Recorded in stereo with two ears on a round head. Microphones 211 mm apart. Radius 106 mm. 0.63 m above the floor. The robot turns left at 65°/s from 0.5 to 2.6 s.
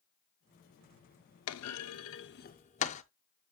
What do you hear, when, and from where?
1.5 s a clunk: 70° left (ahead or behind), 0.6 m; by 3.0 s 30° left (ahead or behind), 0.6 m